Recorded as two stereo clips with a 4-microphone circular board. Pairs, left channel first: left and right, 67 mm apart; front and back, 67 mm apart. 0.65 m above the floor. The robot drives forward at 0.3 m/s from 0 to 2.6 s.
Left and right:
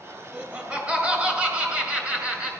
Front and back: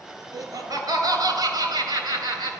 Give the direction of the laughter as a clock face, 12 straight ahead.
5 o'clock.